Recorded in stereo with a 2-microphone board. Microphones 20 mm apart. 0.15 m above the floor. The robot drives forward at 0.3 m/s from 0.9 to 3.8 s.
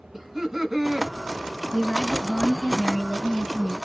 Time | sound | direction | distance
0.1 | laughter | 10° right (ahead or behind) | 1.2 m
1.7 | a woman speaking | 40° left (ahead or behind) | 2 m